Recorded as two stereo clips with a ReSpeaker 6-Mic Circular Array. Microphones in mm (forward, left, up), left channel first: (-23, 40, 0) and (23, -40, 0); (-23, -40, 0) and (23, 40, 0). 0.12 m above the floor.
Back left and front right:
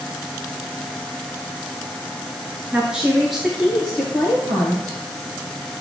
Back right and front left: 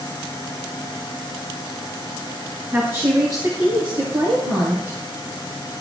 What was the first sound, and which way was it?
A woman speaking, 5° left.